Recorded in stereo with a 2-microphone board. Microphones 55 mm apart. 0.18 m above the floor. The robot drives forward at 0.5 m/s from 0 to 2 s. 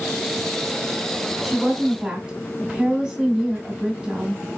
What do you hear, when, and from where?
1.4 s a woman speaking: 20° right (ahead or behind), 1.2 m